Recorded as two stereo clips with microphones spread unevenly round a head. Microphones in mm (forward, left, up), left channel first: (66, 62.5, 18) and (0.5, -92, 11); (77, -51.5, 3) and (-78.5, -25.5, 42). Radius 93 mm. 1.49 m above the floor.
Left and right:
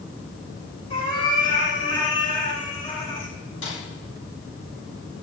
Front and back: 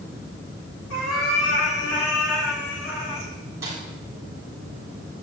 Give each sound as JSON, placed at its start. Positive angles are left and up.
{"t": 0.9, "sound": "a cat meowing", "azimuth_deg": 10, "distance_m": 10.0}
{"t": 3.6, "sound": "a snare drum", "azimuth_deg": 95, "distance_m": 8.5}